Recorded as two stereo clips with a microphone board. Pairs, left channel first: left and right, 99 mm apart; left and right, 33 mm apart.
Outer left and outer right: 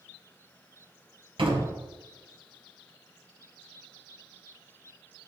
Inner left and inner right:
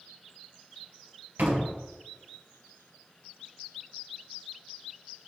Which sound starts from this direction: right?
A door slam, at 1.4 s.